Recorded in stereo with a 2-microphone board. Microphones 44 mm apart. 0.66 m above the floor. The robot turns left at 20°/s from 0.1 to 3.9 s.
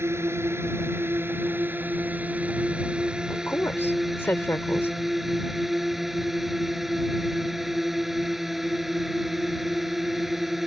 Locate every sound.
0.0 s a drone: 100° right; by 10.7 s 175° right
3.3 s a woman speaking: 65° left (ahead or behind)